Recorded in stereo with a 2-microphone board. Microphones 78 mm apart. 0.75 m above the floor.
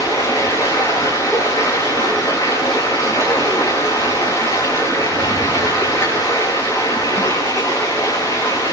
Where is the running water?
45° left (ahead or behind), 7 m.